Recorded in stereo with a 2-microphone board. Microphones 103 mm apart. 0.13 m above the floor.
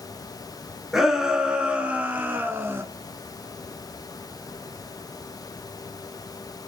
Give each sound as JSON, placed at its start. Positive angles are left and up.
{"t": 0.9, "sound": "a shout", "side_deg": -5, "distance_m": 1.3}